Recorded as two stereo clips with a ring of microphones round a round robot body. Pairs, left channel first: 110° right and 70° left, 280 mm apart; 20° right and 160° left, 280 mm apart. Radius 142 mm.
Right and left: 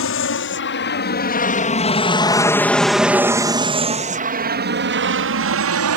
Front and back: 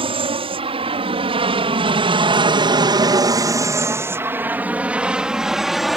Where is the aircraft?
135° right; by 6.0 s 70° left.